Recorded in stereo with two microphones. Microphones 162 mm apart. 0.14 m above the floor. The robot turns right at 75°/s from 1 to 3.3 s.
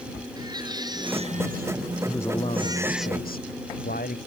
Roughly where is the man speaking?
Ahead.